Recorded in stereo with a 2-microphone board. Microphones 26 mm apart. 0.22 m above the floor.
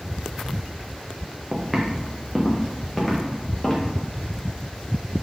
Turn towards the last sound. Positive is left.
turn(degrees=20)  # may be behind; listen again after turning